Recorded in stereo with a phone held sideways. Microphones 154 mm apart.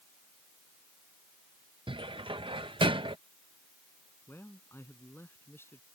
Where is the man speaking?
15° left (ahead or behind).